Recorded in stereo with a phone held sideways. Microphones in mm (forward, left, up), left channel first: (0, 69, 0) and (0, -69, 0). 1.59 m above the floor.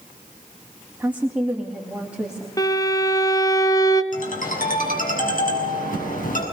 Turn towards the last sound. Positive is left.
turn(degrees=65)  # may be behind; listen again after turning